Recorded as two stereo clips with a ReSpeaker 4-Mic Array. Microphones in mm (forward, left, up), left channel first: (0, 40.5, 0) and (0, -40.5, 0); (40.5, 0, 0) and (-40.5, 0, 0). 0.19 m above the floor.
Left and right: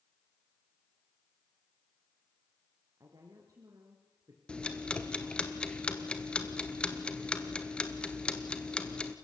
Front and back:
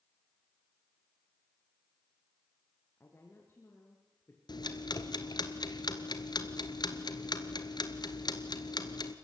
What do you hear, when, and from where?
3.0 s a woman speaking: 55° right, 3 m
4.5 s ticking: 15° left, 1.5 m